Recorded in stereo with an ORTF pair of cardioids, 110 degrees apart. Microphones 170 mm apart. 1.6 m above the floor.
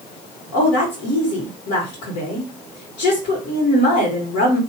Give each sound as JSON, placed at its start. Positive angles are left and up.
{"t": 0.5, "sound": "a woman speaking", "azimuth_deg": 70, "distance_m": 1.7}